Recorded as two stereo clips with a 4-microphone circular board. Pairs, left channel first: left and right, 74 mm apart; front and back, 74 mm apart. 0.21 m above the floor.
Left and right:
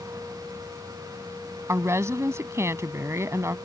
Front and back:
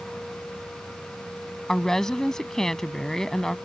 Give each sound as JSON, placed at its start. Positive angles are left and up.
{"t": 1.7, "sound": "a woman speaking", "azimuth_deg": -80}